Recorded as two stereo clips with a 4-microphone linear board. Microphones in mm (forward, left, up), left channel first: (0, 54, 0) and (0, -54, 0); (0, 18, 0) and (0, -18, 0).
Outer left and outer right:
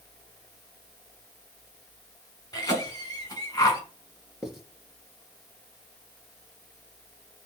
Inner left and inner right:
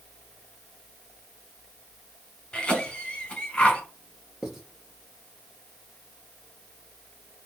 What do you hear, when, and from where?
2.5 s a cough: 25° left (ahead or behind), 2 m
4.4 s writing: 5° right (ahead or behind), 1.8 m